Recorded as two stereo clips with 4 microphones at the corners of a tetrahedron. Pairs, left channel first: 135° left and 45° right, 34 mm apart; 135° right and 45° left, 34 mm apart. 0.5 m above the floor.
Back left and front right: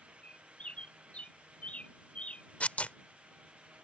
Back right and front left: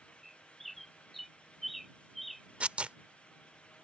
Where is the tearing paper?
90° left.